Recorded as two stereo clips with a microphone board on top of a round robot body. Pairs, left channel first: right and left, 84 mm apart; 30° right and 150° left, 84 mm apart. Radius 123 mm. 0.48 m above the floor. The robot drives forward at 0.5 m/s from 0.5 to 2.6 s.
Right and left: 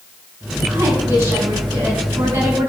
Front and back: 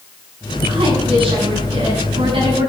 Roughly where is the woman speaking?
Behind left.